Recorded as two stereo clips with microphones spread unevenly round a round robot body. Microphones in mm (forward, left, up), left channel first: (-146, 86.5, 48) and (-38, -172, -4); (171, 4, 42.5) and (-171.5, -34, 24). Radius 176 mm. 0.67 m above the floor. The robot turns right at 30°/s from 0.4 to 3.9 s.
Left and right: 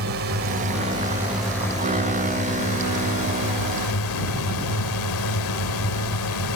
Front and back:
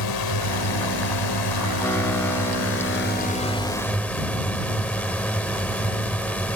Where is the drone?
15° right; by 6.6 s 90° left.